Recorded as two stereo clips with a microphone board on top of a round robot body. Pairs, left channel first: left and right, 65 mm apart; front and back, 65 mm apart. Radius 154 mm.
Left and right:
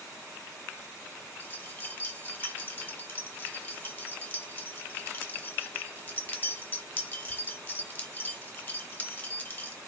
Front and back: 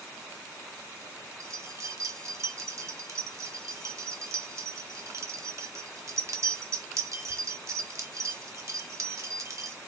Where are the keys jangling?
150° left, 0.9 m.